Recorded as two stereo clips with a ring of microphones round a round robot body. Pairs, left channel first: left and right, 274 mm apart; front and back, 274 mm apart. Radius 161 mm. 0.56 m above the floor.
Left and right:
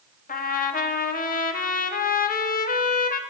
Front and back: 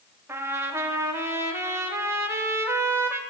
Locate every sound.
0.3 s a trumpet: 105° left, 0.6 m